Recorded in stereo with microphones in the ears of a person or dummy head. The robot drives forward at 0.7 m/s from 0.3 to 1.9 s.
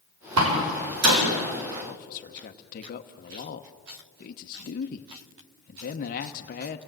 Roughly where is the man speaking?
Left.